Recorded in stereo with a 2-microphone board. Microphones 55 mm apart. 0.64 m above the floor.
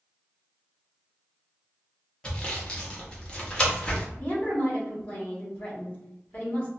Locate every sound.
2.2 s sawing: 20° left (ahead or behind), 0.7 m
4.2 s a woman speaking: 35° left (ahead or behind), 1.2 m